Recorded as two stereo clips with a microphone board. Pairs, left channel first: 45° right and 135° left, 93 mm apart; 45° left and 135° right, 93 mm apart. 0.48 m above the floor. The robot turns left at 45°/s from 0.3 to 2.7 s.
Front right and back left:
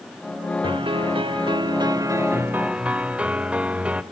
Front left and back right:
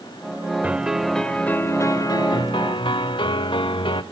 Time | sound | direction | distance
0.6 | a piano | 150° left | 0.8 m